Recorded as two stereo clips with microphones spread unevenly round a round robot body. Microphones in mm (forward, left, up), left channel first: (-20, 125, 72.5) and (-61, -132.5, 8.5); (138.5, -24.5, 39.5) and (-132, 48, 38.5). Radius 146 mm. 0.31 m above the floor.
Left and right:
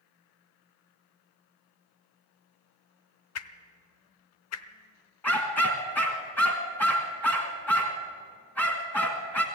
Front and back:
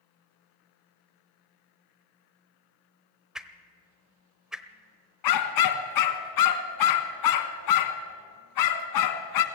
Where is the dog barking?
5° right, 1.4 m.